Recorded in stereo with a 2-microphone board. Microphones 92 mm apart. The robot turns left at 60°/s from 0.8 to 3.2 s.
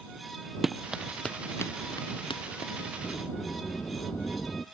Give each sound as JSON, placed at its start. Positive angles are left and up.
{"t": 0.6, "sound": "running footsteps", "side_deg": 0}
{"t": 3.0, "sound": "a sliding door", "side_deg": 30}